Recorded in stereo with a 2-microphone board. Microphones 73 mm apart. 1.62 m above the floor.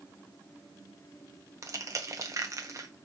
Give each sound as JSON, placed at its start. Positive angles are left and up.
{"t": 1.6, "sound": "crushing", "side_deg": -45, "distance_m": 0.8}